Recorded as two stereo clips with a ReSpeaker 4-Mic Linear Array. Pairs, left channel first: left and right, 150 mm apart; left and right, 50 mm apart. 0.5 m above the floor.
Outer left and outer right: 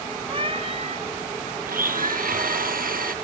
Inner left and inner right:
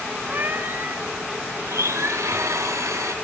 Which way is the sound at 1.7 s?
70° right (ahead or behind).